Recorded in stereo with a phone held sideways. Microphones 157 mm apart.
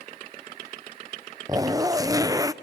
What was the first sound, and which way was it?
A zipper, 20° right (ahead or behind).